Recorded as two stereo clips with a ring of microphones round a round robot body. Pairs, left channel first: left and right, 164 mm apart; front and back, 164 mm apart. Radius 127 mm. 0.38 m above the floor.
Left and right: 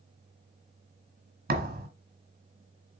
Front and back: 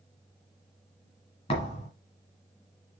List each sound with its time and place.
1.5 s a thud: 65° right, 2 m